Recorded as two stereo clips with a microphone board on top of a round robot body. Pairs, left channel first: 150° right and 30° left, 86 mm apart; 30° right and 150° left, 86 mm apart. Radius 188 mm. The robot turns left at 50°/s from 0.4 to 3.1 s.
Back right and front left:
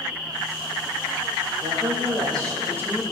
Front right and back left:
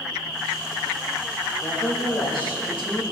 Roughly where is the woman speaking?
Ahead left.